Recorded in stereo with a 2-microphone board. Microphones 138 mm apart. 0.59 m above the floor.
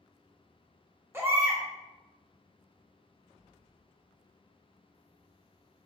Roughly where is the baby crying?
Centre.